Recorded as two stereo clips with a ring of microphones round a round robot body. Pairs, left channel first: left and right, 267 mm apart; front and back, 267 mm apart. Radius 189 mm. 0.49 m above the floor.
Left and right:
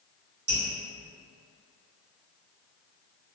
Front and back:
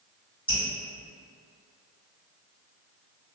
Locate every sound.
0.5 s dripping: 75° right, 1.5 m